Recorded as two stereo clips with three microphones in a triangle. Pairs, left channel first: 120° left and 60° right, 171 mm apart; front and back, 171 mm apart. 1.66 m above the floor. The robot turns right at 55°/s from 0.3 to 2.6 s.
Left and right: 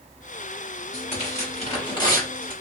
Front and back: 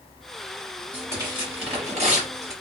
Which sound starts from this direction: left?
Tearing paper, at 0.9 s.